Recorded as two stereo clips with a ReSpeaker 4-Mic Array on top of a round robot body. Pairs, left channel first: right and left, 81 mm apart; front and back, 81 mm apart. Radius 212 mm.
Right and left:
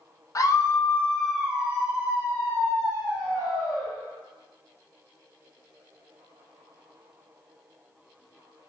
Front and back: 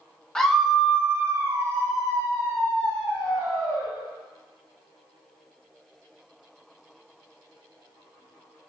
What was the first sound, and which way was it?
A scream, 80° right.